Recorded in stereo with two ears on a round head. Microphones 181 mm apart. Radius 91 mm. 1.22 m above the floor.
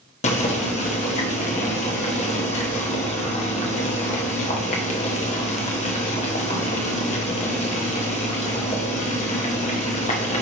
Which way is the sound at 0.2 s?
35° left (ahead or behind).